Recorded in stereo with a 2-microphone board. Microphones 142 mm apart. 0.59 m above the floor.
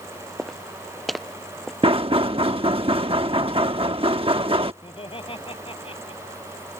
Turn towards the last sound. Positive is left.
turn(degrees=40)  # may be behind; listen again after turning